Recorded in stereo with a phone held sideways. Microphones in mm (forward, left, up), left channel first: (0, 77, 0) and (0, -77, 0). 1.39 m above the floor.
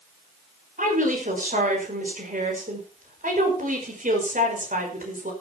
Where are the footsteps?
No footsteps in this recording.